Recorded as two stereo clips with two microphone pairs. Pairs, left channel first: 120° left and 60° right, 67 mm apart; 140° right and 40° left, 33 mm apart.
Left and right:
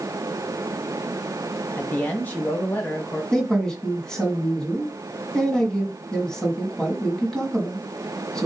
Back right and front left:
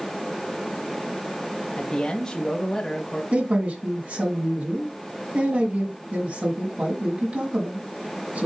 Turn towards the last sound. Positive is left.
turn(degrees=45)